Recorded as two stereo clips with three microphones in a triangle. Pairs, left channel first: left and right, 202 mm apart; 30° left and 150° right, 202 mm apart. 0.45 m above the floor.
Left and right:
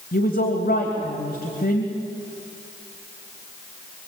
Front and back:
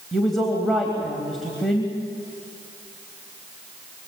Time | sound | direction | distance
0.1 | a woman speaking | 120° left | 3 m